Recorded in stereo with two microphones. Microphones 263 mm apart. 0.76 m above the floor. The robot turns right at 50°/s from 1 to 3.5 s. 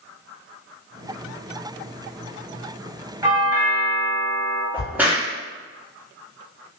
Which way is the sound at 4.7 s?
5° right (ahead or behind).